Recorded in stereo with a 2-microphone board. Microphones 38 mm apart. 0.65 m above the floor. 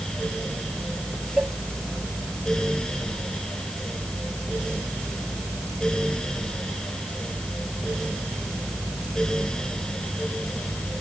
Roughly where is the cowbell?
Right.